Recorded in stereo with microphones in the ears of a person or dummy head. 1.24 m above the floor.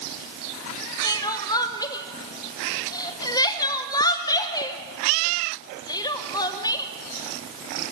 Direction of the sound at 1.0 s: 25° left (ahead or behind).